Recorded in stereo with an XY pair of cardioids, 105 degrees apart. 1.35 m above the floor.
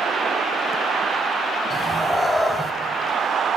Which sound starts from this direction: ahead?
A cat meowing, at 1.7 s.